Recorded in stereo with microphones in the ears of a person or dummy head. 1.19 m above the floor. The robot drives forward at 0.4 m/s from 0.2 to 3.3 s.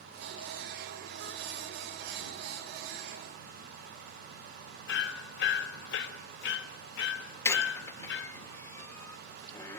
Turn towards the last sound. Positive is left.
turn(degrees=20)  # may be behind; listen again after turning